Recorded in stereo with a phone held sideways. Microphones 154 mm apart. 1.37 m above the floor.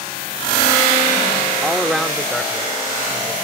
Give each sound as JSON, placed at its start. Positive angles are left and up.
{"t": 1.6, "sound": "a man speaking", "side_deg": -5}